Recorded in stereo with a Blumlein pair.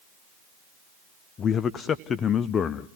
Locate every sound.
1.4 s a man speaking: 25° left, 0.6 m